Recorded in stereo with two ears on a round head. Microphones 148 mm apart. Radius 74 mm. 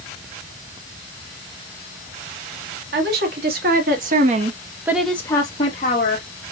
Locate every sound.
2.9 s a woman speaking: 70° right (ahead or behind), 2.5 m; by 6.3 s 50° left (ahead or behind), 1.8 m